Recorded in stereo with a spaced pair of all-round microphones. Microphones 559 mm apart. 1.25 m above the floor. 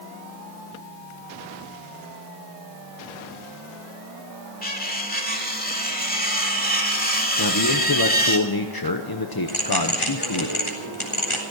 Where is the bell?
60° left (ahead or behind), 3.5 m.